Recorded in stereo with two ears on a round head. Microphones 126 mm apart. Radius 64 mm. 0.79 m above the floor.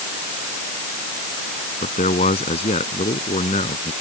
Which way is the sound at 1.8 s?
45° left (ahead or behind).